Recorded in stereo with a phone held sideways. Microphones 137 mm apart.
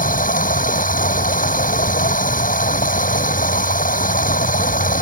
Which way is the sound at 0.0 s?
80° left.